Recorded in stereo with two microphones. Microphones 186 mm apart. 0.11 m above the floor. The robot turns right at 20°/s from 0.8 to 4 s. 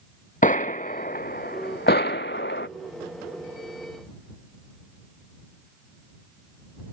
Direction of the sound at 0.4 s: 45° left (ahead or behind).